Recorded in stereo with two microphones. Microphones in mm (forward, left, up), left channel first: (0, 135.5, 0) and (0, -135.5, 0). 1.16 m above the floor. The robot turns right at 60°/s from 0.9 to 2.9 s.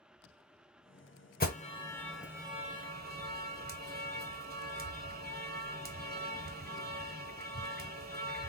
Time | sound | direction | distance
1.4 | an alarm | 35° left (ahead or behind) | 0.8 m